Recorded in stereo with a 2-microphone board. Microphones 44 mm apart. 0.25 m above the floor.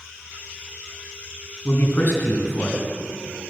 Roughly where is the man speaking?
Left.